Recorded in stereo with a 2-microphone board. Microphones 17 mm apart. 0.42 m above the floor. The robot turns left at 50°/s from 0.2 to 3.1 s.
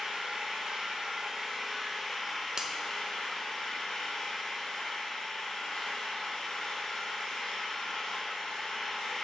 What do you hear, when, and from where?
0.0 s an engine running: 90° right, 2.5 m; by 9.2 s 125° left, 2.5 m
2.6 s a finger snap: 35° right (ahead or behind), 0.7 m